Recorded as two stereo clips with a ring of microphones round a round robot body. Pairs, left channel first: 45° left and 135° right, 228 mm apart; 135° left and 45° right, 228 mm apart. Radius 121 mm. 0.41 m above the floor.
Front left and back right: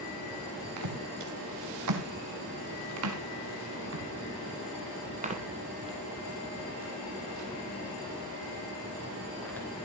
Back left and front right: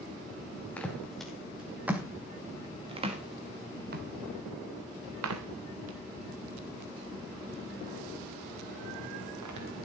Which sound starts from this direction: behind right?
Footsteps, at 0.8 s.